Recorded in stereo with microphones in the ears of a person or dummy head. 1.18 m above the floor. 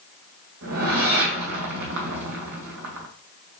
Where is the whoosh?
60° right (ahead or behind), 2 m.